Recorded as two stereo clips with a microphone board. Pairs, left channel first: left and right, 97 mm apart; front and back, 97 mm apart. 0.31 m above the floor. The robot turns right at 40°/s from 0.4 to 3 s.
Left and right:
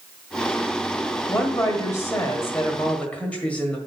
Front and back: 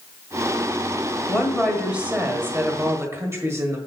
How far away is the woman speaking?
About 1.6 m.